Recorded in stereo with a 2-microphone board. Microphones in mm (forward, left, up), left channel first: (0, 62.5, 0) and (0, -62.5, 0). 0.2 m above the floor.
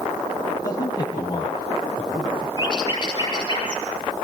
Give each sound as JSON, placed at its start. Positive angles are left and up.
{"t": 0.6, "sound": "a man speaking", "side_deg": 30, "distance_m": 8.5}
{"t": 2.6, "sound": "a bird", "side_deg": 35, "distance_m": 8.0}